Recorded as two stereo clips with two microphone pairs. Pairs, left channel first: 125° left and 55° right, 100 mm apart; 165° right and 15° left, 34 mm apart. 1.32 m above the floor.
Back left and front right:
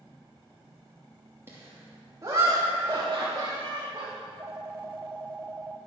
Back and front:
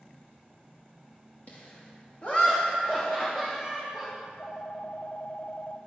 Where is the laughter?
120° right, 2.5 m; by 4.1 s 90° right, 3.5 m.